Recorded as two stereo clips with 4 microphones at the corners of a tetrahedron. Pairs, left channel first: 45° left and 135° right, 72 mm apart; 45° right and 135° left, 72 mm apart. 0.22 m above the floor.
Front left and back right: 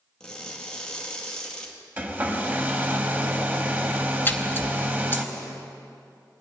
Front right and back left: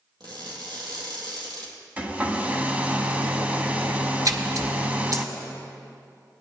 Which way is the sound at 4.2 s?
105° left.